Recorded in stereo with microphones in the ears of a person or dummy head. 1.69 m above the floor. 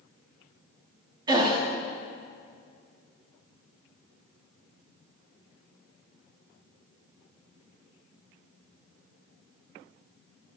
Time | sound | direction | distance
1.3 | a gasp | 20° right (ahead or behind) | 0.9 m